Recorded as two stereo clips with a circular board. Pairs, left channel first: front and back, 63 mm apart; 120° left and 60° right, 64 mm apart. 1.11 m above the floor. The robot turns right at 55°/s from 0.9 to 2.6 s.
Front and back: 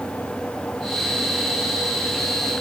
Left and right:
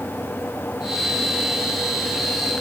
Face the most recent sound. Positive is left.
No sound to turn to.